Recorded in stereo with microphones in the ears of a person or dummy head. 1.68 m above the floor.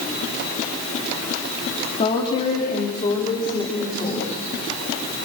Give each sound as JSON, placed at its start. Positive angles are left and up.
{"t": 2.0, "sound": "a woman speaking", "side_deg": 35, "distance_m": 3.5}